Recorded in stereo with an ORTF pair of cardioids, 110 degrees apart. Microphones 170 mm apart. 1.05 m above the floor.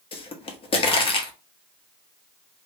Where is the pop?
30° left, 0.9 m.